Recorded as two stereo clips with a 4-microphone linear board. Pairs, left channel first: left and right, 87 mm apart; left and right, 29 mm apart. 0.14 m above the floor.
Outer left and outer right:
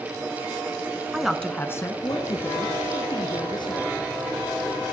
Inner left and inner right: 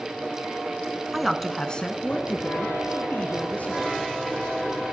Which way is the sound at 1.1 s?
10° right (ahead or behind).